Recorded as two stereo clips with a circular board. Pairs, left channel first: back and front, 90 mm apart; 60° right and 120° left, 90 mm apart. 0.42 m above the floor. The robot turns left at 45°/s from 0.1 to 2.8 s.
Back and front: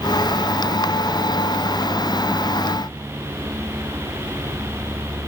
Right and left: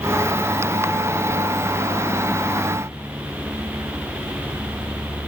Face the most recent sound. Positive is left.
No sound to turn to.